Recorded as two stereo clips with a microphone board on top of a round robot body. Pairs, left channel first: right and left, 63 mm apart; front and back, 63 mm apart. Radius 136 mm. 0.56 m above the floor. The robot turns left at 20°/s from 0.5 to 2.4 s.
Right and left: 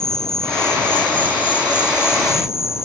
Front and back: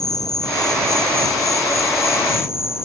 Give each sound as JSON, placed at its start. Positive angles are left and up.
{"t": 0.0, "sound": "an insect", "azimuth_deg": -10}